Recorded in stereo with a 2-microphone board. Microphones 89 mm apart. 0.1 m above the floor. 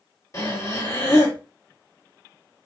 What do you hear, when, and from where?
0.3 s breathing: 40° left (ahead or behind), 2 m